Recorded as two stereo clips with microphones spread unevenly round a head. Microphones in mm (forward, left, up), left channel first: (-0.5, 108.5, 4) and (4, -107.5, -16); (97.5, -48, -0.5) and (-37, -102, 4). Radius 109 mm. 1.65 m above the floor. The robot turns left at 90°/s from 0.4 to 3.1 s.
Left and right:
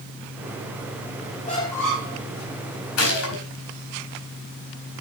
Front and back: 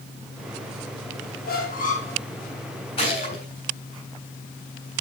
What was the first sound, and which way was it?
A squeak, 40° left.